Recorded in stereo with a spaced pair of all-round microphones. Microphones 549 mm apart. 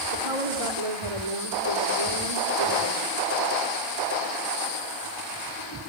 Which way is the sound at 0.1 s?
85° right.